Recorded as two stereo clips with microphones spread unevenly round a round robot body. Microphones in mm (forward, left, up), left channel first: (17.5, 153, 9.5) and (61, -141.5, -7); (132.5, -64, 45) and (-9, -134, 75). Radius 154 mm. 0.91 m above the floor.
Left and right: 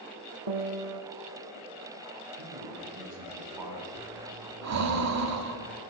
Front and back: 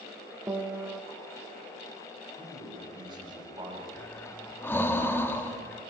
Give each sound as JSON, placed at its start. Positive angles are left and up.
{"t": 0.5, "sound": "a piano", "azimuth_deg": -90, "distance_m": 1.3}
{"t": 2.4, "sound": "a man speaking", "azimuth_deg": -95, "distance_m": 5.5}
{"t": 4.0, "sound": "breathing", "azimuth_deg": -50, "distance_m": 1.9}